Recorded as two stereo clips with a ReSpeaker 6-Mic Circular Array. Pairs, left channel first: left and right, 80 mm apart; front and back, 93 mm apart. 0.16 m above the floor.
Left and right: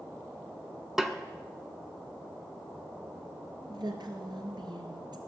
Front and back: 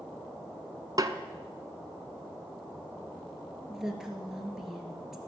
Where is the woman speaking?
95° right, 2.5 m.